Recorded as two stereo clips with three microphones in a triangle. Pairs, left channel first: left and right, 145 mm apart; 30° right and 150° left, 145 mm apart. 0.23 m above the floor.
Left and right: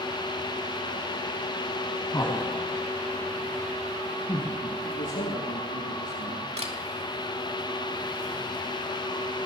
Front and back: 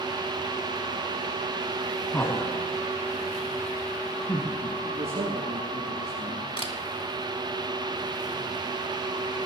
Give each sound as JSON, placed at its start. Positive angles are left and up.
{"t": 2.1, "sound": "laughter", "azimuth_deg": 35, "distance_m": 1.6}
{"t": 4.8, "sound": "a man speaking", "azimuth_deg": 105, "distance_m": 4.5}
{"t": 6.6, "sound": "a camera shutter", "azimuth_deg": -70, "distance_m": 2.5}